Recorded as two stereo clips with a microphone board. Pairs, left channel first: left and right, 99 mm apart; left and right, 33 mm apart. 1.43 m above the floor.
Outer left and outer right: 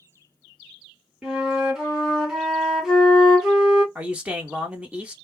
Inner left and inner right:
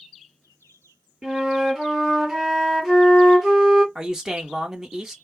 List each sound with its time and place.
1.2 s a flute: 5° right (ahead or behind), 1.3 m
4.0 s a man speaking: 15° right (ahead or behind), 1.1 m